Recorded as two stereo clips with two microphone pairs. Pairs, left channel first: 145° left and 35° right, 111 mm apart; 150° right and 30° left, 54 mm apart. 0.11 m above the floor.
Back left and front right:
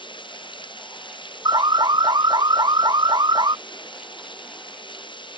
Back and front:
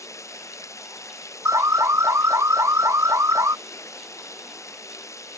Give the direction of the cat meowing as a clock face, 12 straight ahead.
I don't hear a cat meowing.